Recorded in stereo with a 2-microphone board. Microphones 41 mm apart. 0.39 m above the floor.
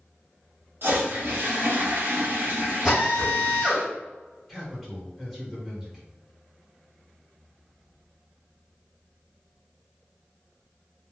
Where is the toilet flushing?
60° right (ahead or behind), 0.8 m.